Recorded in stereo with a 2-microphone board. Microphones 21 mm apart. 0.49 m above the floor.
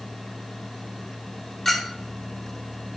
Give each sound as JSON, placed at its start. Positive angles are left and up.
{"t": 1.6, "sound": "a clink", "side_deg": 20, "distance_m": 0.8}